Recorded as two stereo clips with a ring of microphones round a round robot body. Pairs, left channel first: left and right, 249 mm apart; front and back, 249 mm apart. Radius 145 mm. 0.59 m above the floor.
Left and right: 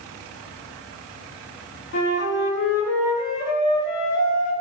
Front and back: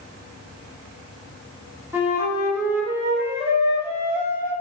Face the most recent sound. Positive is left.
turn(degrees=100)